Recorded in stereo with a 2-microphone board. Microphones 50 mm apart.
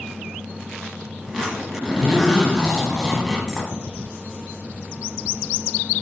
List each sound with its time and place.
1.2 s a zipper: 5° right (ahead or behind), 1.1 m